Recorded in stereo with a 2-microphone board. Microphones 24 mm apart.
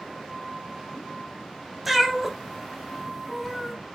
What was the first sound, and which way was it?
A cat meowing, centre (ahead or behind).